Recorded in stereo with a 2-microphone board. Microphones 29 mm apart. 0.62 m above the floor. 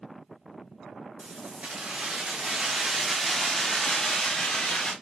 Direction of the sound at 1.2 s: 55° right (ahead or behind).